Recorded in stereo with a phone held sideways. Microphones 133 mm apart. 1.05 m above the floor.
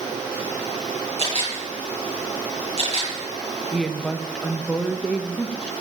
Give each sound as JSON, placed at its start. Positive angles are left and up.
{"t": 1.2, "sound": "a camera shutter", "side_deg": -50, "distance_m": 8.5}
{"t": 3.7, "sound": "a woman speaking", "side_deg": 5, "distance_m": 1.3}